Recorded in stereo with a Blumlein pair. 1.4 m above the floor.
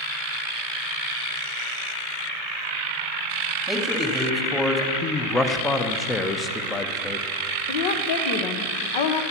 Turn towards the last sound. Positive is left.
turn(degrees=50)